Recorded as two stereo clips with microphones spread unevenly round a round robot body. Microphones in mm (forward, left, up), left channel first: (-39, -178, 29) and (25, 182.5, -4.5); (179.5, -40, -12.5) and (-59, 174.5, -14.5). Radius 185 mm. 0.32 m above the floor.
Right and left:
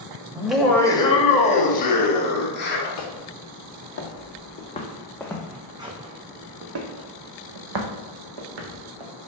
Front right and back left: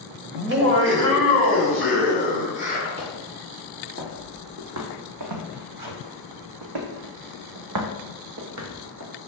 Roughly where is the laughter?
Behind left.